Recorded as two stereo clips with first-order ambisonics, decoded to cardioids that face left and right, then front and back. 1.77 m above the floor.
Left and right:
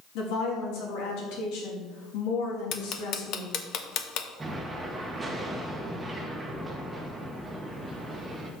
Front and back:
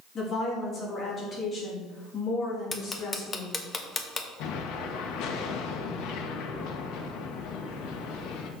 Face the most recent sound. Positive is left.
turn(degrees=-10)